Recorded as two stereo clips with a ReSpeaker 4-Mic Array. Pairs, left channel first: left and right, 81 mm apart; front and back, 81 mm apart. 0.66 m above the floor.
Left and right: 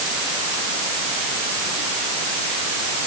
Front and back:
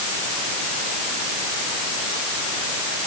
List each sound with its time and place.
Only background noise.